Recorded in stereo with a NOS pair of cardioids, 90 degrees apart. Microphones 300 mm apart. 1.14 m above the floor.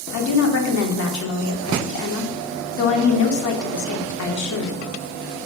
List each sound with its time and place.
0.1 s a woman speaking: 60° left, 2.5 m